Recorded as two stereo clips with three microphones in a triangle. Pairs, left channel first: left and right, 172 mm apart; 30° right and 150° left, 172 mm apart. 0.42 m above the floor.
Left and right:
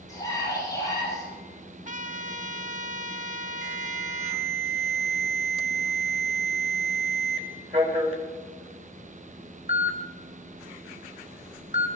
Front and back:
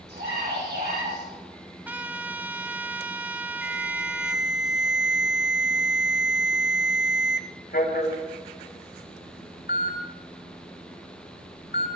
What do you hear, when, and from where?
0.1 s a scream: 160° left, 8 m
1.9 s a trumpet: 130° right, 0.7 m
3.6 s an alarm: 40° right, 2.5 m